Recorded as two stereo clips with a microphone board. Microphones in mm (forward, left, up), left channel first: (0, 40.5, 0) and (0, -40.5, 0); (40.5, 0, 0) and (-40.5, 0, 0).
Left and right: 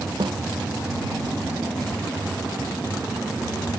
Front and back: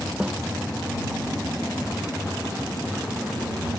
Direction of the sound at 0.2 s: 105° right.